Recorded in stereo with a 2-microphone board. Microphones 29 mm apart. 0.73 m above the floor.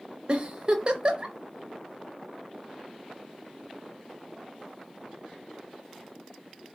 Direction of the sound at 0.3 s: 40° right (ahead or behind).